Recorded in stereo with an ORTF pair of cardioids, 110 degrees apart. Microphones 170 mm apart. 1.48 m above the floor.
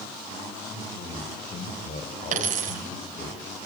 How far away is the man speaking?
About 5.5 m.